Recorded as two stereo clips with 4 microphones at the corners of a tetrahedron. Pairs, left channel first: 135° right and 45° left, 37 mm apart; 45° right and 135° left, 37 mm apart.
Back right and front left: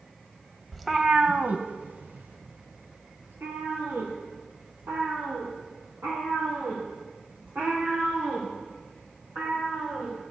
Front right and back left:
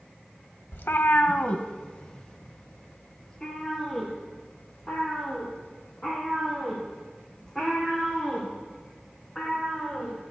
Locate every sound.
0.7 s a cat meowing: 55° right, 0.7 m; by 10.1 s 40° left, 10.5 m